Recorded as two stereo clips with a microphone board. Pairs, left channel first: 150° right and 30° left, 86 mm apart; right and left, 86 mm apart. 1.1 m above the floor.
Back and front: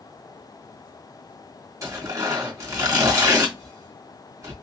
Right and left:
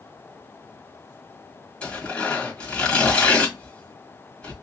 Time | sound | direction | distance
1.8 | tearing paper | 15° right | 1.9 m